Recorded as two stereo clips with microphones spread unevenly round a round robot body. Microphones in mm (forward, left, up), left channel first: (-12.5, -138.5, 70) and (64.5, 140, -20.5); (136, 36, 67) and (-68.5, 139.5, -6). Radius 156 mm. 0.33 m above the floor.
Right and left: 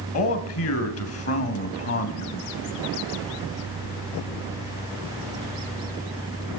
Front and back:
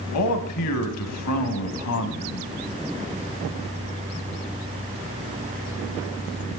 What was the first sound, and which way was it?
A man speaking, 60° right.